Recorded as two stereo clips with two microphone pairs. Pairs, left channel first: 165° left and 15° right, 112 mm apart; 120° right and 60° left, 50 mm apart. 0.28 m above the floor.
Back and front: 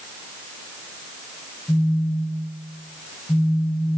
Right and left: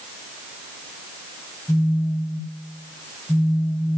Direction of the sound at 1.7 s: 130° right.